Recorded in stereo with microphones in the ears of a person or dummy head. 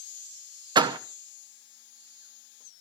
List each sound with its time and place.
0.8 s a door slam: 25° right (ahead or behind), 0.8 m